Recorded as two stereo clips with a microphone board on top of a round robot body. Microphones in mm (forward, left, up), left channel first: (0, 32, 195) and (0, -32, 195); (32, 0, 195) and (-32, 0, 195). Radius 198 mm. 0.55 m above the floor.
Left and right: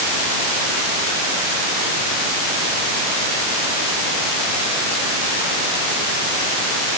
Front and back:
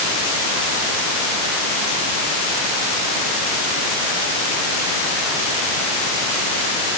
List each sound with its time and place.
Only background noise.